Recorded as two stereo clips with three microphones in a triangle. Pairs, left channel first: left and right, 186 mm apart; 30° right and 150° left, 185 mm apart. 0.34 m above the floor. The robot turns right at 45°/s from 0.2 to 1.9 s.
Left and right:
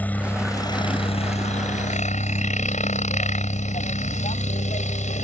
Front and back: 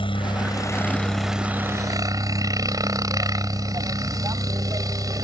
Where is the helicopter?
15° left; by 5.2 s 90° left.